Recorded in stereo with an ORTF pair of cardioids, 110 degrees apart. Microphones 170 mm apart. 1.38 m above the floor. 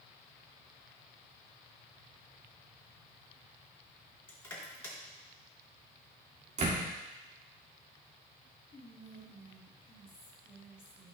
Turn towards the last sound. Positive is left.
turn(degrees=35)